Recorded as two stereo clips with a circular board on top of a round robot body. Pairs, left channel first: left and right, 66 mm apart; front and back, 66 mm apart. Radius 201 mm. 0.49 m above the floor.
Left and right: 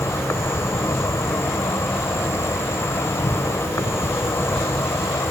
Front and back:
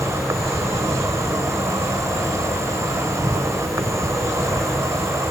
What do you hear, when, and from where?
0.0 s an insect: 140° left